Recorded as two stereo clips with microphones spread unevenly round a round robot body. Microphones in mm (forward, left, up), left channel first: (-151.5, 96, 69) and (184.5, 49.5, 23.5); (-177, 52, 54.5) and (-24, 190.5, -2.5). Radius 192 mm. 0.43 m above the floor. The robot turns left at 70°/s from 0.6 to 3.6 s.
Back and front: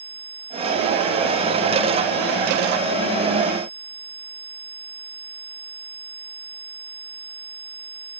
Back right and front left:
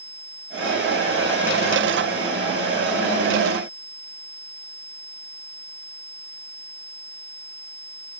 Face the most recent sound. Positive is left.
No sound to turn to.